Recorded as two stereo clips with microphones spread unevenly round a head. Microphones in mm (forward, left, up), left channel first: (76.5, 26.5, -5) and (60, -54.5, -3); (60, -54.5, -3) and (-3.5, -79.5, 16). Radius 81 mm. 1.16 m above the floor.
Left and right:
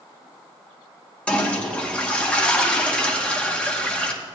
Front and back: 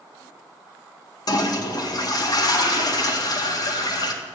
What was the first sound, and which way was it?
A toilet flushing, 5° left.